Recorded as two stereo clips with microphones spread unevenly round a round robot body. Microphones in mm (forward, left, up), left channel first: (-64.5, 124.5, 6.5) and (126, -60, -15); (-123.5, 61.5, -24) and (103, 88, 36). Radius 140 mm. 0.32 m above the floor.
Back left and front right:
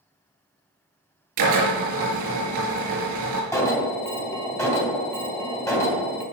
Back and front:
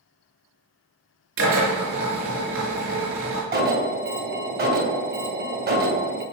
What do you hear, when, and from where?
1.4 s a drill: 45° right, 5 m
3.5 s an alarm: 55° left, 3 m